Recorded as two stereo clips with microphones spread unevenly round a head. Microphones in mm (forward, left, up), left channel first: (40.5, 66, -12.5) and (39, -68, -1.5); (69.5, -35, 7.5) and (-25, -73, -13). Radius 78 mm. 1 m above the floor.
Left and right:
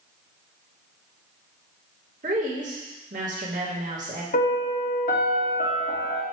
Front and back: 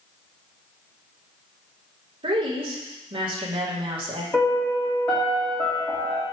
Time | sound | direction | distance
2.2 | a woman speaking | 135° right | 2 m
4.3 | a piano | 105° left | 1.7 m